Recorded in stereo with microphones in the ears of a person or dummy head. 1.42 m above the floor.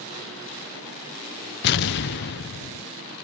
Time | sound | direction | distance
1.6 | an explosion | 55° left (ahead or behind) | ?